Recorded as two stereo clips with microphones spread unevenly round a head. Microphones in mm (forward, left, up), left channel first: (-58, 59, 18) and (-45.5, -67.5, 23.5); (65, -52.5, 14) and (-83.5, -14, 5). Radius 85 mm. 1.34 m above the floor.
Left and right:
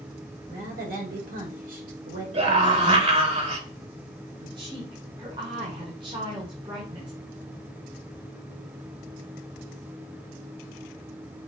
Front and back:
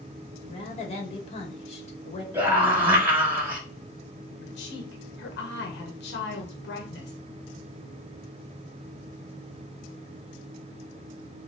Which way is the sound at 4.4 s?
20° right.